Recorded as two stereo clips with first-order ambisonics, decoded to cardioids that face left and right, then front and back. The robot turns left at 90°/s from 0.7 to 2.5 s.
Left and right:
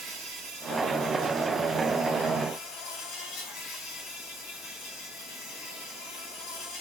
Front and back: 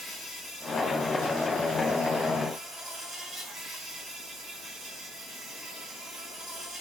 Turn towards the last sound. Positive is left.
turn(degrees=110)